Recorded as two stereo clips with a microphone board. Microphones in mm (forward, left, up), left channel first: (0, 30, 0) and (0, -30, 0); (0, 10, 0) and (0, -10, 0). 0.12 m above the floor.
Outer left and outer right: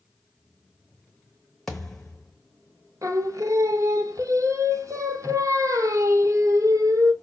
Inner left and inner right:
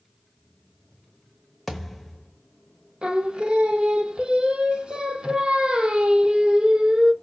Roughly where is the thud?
Centre.